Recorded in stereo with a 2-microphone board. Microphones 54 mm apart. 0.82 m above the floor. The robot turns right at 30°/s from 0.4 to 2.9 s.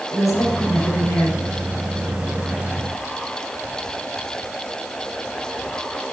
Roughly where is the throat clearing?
I don't hear throat clearing.